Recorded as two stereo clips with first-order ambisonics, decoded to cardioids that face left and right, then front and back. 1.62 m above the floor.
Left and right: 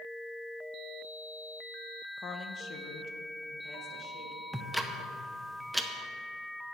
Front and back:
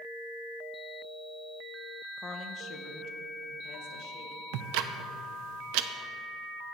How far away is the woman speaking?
About 0.6 m.